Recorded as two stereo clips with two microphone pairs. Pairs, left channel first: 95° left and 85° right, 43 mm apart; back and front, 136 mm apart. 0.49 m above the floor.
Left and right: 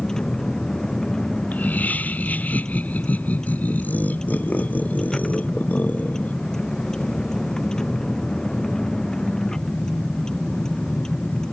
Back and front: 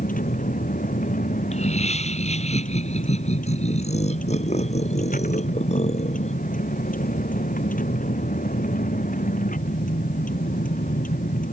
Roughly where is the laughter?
Behind left.